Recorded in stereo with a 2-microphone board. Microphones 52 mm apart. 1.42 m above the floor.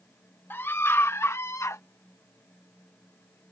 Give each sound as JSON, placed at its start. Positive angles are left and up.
{"t": 0.5, "sound": "a scream", "side_deg": 50}